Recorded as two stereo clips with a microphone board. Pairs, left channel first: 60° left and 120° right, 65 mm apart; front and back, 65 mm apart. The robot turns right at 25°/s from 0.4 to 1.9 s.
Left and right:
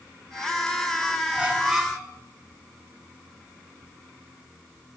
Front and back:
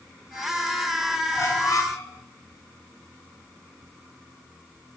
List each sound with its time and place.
1.4 s a squeak: 50° right, 3.5 m; by 2.1 s 35° right, 3.5 m